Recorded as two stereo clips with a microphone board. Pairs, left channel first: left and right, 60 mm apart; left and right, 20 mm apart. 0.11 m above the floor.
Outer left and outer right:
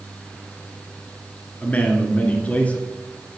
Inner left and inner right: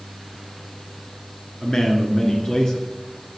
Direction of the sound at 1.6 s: 25° left (ahead or behind).